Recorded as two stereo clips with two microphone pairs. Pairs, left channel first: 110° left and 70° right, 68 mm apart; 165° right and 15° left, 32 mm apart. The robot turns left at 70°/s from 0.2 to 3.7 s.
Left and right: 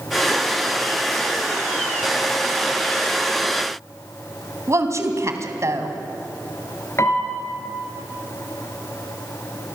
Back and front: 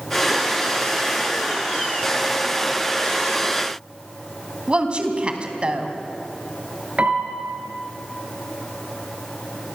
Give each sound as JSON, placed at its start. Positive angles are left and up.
{"t": 4.7, "sound": "a woman speaking", "azimuth_deg": -35, "distance_m": 3.0}
{"t": 7.0, "sound": "a piano", "azimuth_deg": 60, "distance_m": 3.5}